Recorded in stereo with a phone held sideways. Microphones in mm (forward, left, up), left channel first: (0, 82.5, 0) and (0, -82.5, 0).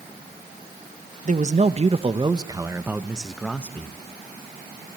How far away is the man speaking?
About 1.3 m.